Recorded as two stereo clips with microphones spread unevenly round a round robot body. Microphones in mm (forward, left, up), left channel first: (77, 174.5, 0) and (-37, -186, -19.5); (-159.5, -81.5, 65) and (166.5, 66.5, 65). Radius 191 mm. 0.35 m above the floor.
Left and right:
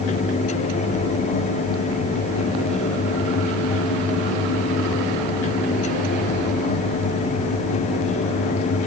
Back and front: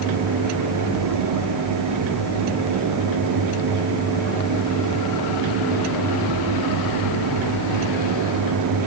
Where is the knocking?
No knocking in this recording.